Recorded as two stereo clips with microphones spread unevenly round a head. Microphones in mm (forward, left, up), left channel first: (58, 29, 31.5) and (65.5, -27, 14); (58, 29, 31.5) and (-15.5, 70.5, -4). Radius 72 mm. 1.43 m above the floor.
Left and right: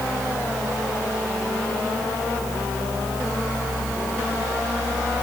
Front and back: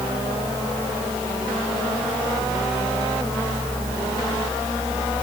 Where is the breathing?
I don't hear breathing.